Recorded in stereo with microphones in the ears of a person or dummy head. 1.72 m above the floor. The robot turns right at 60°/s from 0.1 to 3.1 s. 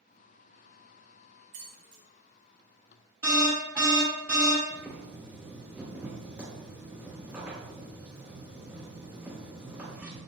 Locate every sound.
1.5 s keys jangling: 35° right (ahead or behind), 0.8 m; by 2.0 s 30° right (ahead or behind), 0.8 m
3.2 s an alarm: 10° right (ahead or behind), 1.5 m
4.7 s boiling: 5° right (ahead or behind), 1.8 m